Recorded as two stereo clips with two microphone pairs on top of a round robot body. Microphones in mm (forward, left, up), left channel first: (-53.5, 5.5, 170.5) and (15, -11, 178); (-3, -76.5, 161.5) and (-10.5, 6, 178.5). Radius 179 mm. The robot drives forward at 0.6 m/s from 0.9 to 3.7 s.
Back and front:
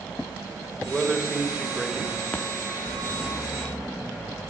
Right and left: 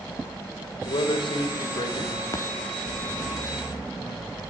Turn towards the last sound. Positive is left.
turn(degrees=-135)